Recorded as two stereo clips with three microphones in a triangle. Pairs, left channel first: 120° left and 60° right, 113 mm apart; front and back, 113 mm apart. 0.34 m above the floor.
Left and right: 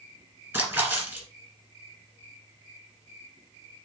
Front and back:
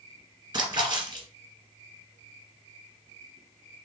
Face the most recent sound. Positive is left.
turn(degrees=-130)